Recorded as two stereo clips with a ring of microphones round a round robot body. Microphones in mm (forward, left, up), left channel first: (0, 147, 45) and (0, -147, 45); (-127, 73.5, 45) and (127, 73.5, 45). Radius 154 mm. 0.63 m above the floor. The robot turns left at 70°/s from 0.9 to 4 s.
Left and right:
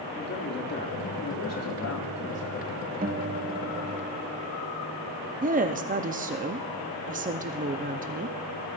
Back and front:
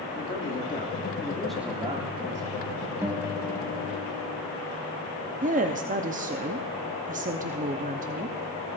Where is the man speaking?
135° left, 2.0 m; by 2.8 s straight ahead, 2.0 m.